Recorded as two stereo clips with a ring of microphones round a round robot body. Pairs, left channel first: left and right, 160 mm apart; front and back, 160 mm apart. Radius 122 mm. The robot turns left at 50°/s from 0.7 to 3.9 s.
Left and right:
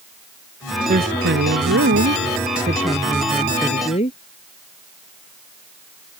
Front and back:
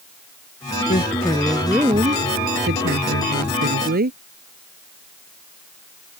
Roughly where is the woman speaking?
Ahead right.